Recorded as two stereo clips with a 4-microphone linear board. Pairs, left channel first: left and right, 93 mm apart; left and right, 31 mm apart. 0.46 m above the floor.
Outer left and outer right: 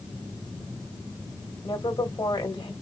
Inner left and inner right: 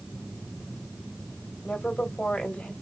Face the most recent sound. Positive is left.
turn(degrees=55)  # may be behind; listen again after turning